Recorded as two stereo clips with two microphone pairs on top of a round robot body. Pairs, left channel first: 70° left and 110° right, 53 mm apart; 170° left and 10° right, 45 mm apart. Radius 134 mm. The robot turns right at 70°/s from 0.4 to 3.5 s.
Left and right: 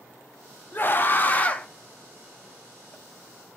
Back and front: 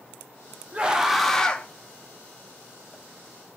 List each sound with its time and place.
0.7 s a scream: 55° left, 0.9 m; by 1.7 s 120° left, 0.9 m